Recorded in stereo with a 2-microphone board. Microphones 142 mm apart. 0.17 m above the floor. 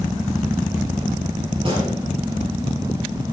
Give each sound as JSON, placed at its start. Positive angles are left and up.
{"t": 1.6, "sound": "a gunshot", "side_deg": -35, "distance_m": 4.0}